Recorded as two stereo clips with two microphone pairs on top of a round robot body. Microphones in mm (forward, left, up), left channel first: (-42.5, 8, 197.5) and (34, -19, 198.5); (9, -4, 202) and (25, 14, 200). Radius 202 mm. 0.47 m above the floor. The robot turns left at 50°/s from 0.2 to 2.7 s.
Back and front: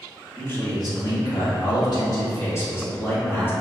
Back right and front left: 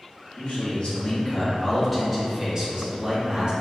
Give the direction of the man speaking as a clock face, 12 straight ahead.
5 o'clock.